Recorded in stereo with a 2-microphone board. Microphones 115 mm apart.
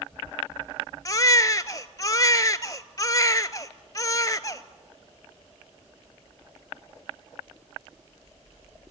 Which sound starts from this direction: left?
A baby crying, at 1.1 s.